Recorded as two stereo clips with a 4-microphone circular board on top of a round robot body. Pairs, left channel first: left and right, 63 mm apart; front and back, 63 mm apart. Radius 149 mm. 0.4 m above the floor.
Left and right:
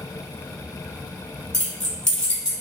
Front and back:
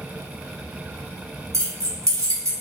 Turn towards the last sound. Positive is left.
turn(degrees=165)